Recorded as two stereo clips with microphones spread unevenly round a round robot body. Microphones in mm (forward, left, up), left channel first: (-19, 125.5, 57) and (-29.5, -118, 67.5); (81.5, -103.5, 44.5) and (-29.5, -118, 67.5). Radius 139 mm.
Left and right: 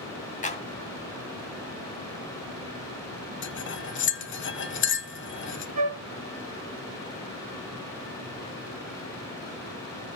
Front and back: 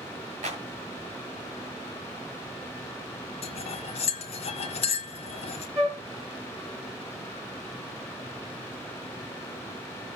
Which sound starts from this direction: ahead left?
Cutlery clinking, at 3.4 s.